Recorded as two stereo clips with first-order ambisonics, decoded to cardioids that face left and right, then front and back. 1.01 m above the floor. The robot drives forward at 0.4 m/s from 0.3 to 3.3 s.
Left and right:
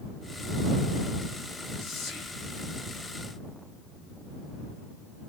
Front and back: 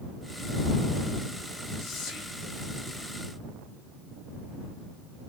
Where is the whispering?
45° left, 2.0 m; by 2.4 s 50° left, 1.8 m.